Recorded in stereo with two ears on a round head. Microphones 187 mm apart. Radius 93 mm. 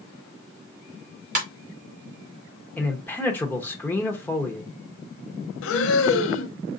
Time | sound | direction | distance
1.4 | a ringtone | 35° right (ahead or behind) | 2.5 m
2.8 | a man speaking | 10° left (ahead or behind) | 1.0 m
5.6 | breathing | 70° left (ahead or behind) | 0.7 m